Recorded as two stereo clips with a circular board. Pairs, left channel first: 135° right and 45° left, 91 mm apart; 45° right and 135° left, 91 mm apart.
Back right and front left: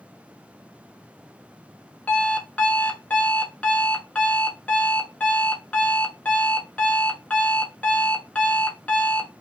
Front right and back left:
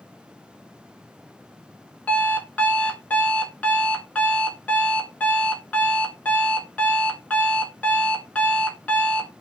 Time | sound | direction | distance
2.1 | an alarm clock | 90° right | 0.5 m